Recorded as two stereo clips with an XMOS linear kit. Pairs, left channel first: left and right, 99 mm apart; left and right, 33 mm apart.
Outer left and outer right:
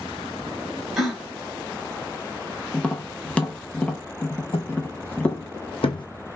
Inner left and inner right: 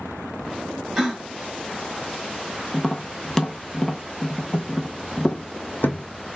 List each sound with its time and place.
1.0 s a gasp: centre (ahead or behind), 1.9 m
2.7 s tapping: 15° left (ahead or behind), 0.6 m
4.5 s footsteps: 65° left (ahead or behind), 1.1 m; by 6.0 s 55° left (ahead or behind), 0.5 m